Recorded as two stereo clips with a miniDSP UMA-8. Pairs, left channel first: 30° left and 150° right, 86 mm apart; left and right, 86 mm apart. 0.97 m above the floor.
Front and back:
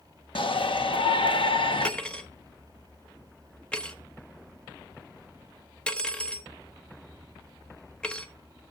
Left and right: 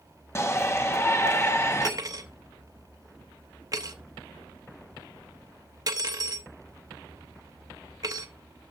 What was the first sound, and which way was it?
A shout, 30° left.